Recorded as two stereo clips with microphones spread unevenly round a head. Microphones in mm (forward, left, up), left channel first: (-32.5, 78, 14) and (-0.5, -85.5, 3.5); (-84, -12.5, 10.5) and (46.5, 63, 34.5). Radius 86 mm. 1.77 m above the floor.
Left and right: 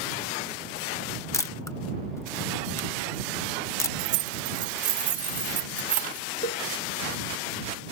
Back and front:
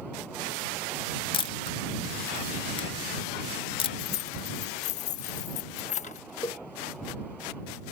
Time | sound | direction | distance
1.3 | a camera shutter | 160° left | ?
4.0 | keys jangling | 105° right | ?
6.4 | a cowbell | 135° left | ?